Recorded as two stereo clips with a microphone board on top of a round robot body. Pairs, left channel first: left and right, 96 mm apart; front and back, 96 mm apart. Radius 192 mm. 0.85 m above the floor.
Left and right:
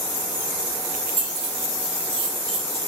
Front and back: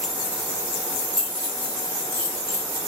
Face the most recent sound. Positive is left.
turn(degrees=-55)